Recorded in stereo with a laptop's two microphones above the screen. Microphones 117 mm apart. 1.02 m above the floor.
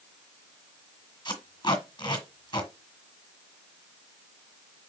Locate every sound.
1.2 s tape being pulled: 40° left (ahead or behind), 1.4 m